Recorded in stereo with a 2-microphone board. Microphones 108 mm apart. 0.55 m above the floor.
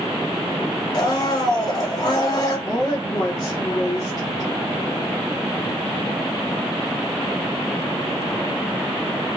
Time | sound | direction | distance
0.9 | a blender | 40° left (ahead or behind) | 0.9 m
2.7 | a woman speaking | 40° left (ahead or behind) | 1.0 m